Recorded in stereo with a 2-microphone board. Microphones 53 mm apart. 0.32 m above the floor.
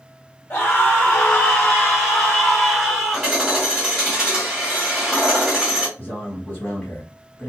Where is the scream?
30° left (ahead or behind), 1.1 m; by 3.3 s 15° right (ahead or behind), 1.7 m.